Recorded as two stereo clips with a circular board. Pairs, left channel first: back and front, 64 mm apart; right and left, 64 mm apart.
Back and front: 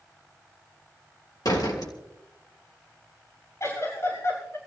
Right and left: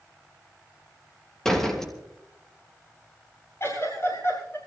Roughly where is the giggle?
Behind right.